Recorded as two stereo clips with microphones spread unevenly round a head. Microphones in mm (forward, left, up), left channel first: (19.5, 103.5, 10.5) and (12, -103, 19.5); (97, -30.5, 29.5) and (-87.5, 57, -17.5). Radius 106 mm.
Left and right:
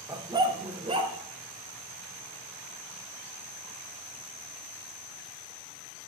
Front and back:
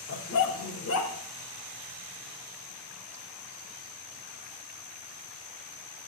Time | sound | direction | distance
0.1 | a dog barking | 20° right | 1.1 m